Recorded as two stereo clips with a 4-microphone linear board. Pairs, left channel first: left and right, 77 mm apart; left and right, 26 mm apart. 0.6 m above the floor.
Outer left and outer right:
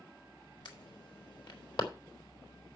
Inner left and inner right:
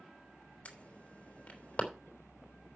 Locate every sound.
0.7 s an alarm: 65° left (ahead or behind), 3.5 m